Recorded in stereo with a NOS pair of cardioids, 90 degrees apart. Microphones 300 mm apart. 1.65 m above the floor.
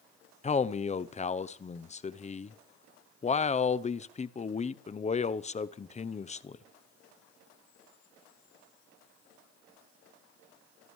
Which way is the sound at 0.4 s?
25° left.